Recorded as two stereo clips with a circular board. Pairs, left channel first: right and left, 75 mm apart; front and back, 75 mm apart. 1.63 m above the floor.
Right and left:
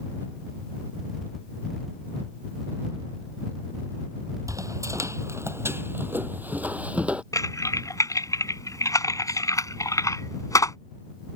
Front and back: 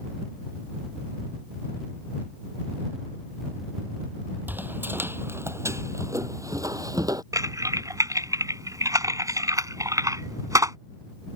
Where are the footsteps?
120° left; by 7.2 s 160° left.